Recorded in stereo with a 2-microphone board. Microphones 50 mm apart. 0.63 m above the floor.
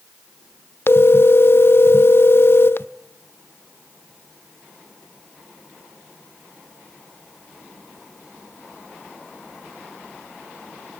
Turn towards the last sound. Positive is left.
turn(degrees=55)  # may be behind; listen again after turning